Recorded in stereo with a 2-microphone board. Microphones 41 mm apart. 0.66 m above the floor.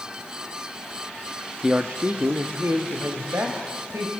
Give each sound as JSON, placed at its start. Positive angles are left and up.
{"t": 1.6, "sound": "a man speaking", "side_deg": -10, "distance_m": 0.7}